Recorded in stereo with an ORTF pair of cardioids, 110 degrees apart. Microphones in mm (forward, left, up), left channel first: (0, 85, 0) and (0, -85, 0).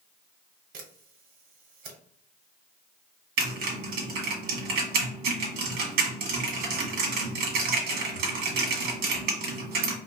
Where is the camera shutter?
65° right, 1.3 m.